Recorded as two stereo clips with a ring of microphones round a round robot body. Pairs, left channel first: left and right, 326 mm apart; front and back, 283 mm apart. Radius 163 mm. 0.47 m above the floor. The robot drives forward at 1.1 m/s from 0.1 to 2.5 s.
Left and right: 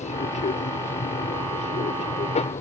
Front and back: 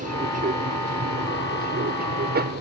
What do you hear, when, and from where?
0.0 s an aircraft: 145° left; by 2.6 s 150° left